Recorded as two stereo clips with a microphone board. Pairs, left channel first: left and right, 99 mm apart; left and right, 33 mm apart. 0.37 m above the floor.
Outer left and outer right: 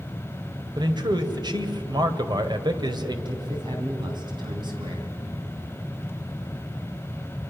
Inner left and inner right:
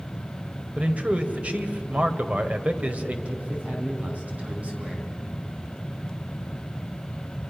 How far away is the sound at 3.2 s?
About 4 m.